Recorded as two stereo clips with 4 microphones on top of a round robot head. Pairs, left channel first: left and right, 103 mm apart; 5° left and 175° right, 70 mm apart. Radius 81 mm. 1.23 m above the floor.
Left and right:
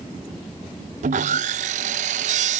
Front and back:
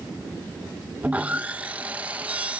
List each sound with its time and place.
1.0 s sawing: 95° right